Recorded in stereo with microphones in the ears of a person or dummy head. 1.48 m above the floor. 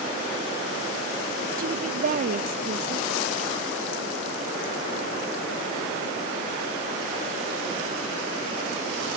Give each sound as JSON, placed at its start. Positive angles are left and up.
{"t": 1.6, "sound": "a woman speaking", "side_deg": -45}